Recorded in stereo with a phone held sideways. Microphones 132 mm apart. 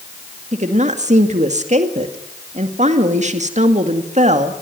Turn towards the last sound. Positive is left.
turn(degrees=-65)  # may be behind; listen again after turning